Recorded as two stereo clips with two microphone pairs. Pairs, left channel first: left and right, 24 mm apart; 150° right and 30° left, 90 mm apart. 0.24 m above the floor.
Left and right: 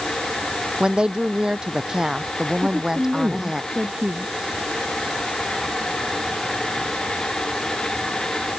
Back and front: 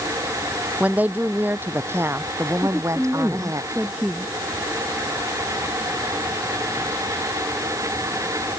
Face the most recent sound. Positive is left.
turn(degrees=-50)